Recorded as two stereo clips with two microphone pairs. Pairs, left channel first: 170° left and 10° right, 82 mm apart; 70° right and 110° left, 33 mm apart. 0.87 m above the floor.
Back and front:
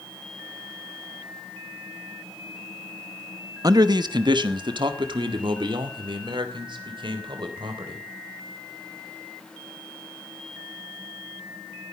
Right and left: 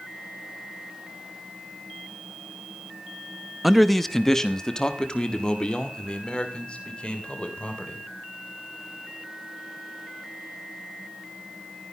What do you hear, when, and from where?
3.6 s a man speaking: 25° left, 0.8 m; by 8.0 s 15° right, 3.5 m